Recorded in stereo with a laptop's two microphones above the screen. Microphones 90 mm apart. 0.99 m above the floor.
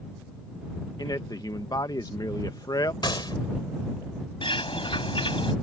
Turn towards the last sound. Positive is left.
turn(degrees=80)